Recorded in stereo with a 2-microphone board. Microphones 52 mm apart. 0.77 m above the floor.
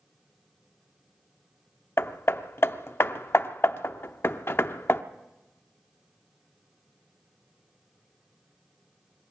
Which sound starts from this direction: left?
Hammering, at 2.0 s.